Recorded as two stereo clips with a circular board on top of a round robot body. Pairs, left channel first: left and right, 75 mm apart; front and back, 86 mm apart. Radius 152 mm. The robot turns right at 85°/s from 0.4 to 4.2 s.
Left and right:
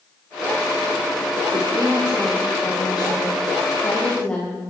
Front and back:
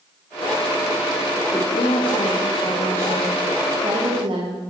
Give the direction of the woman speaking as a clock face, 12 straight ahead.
2 o'clock.